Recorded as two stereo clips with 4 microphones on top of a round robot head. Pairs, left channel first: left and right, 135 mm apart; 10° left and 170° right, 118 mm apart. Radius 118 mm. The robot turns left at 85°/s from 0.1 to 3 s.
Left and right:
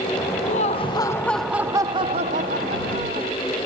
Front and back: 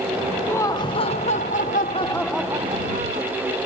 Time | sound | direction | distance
0.5 | laughter | 80° left | ?